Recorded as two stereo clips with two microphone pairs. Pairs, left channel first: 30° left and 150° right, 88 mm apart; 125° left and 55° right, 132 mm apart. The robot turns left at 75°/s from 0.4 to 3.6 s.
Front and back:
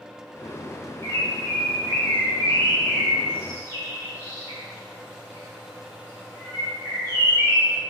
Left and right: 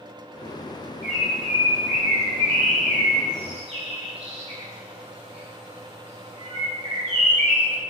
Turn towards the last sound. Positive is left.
turn(degrees=-100)